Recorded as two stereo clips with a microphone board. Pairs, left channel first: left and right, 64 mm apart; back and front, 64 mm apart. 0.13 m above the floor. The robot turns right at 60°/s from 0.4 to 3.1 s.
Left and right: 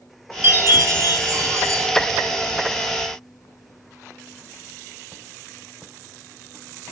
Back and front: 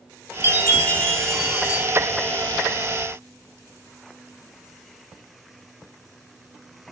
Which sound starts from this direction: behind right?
A chime, at 0.4 s.